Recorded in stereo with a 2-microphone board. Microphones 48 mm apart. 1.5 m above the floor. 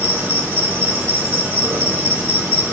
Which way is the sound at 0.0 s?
70° right (ahead or behind).